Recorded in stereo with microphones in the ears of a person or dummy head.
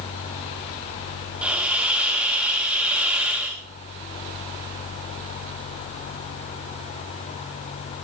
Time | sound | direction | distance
1.4 | a hiss | centre (ahead or behind) | 2 m